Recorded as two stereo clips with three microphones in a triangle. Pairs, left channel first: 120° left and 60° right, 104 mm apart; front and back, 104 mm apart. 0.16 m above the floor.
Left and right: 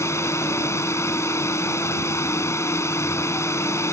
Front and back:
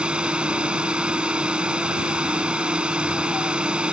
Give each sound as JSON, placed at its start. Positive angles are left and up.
{"t": 0.0, "sound": "a drone", "azimuth_deg": 110}